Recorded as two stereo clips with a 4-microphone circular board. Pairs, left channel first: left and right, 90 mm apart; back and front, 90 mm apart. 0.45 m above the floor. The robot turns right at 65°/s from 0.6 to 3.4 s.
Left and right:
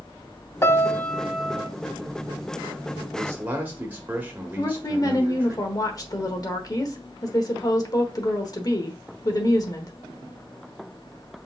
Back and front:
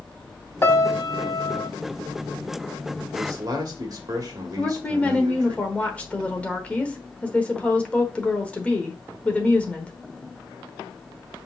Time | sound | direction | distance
0.6 | a piano | 135° left | 0.5 m
3.1 | a man speaking | 45° right | 1.5 m
4.6 | a woman speaking | 110° left | 1.1 m